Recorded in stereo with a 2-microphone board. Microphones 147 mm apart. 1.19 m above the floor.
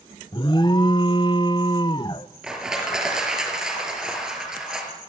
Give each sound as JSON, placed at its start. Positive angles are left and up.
{"t": 0.3, "sound": "an alarm", "side_deg": 30, "distance_m": 0.8}
{"t": 2.4, "sound": "crushing", "side_deg": -5, "distance_m": 5.0}